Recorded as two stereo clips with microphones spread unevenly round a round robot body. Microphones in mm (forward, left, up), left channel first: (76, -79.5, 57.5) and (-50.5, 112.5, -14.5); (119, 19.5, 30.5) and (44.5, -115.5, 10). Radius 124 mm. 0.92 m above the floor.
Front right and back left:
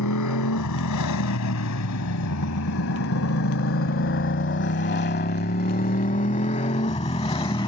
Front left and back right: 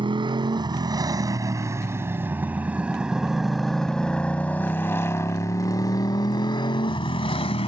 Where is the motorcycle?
60° right; by 7.7 s 10° left.